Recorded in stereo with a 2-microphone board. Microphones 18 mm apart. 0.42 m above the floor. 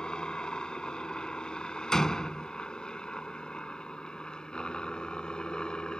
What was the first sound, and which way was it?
A helicopter, 55° left (ahead or behind).